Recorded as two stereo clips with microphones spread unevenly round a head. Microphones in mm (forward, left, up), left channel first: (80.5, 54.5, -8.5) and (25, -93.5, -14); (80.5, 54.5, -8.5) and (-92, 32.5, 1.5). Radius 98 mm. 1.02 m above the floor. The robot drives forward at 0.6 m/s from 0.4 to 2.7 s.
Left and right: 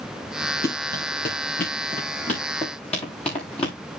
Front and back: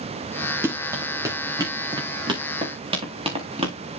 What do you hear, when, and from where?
0.6 s running footsteps: 110° left, 5.5 m; by 3.8 s 135° left, 4.5 m